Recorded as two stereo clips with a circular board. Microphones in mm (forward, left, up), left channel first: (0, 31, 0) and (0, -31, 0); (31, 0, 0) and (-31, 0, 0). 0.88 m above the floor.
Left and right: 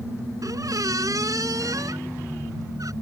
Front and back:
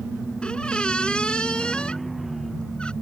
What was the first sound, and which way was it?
A squeak, 75° right.